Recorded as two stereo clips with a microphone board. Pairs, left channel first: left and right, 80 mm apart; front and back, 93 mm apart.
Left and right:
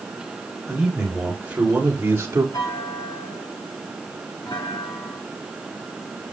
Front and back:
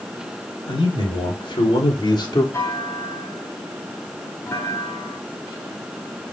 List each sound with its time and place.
0.7 s a man speaking: 10° right, 4.5 m; by 2.4 s 35° right, 2 m
2.5 s a clunk: 55° left, 3.5 m